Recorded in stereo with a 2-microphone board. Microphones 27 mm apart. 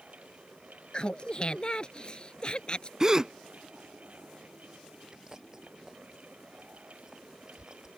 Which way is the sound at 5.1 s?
20° right (ahead or behind).